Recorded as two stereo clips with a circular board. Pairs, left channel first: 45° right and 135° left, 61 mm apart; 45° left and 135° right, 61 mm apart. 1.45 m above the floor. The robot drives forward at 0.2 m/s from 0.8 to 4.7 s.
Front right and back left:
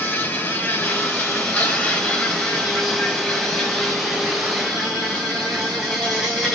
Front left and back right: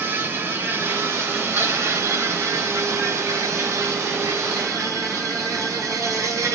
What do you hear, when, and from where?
0.0 s an insect: 100° right, 0.8 m; by 6.5 s 145° right, 1.2 m